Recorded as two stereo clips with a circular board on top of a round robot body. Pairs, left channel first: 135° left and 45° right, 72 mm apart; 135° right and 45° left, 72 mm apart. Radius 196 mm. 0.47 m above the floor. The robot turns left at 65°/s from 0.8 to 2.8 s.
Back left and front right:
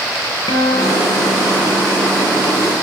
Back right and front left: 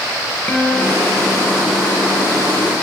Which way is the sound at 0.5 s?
155° left.